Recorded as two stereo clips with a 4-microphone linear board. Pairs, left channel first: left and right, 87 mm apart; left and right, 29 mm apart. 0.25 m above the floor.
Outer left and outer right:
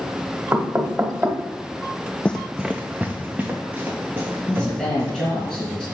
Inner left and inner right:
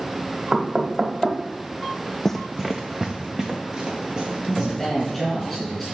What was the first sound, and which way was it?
Knocking, 25° right (ahead or behind).